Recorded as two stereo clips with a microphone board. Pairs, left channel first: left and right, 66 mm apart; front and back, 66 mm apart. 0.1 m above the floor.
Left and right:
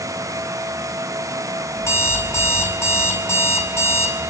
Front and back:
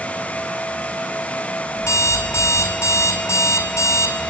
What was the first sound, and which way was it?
An alarm clock, 45° left.